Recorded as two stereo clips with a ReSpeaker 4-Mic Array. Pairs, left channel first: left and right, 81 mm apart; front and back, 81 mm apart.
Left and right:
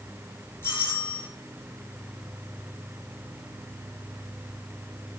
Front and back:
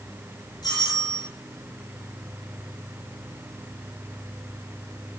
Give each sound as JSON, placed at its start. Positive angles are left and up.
{"t": 0.6, "sound": "a doorbell", "azimuth_deg": 30, "distance_m": 9.0}